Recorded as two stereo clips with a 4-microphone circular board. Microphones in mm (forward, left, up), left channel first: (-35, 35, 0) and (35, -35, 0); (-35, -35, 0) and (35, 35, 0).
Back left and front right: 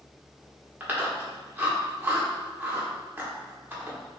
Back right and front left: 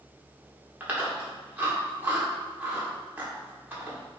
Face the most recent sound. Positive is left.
turn(degrees=0)